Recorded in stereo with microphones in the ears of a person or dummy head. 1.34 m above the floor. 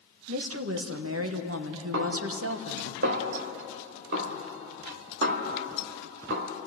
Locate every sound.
0.3 s a woman speaking: 70° right (ahead or behind), 1.3 m
1.9 s a snare drum: 60° right (ahead or behind), 1.7 m